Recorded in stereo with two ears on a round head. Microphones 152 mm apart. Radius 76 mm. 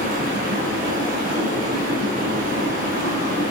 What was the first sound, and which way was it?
Running water, 55° right (ahead or behind).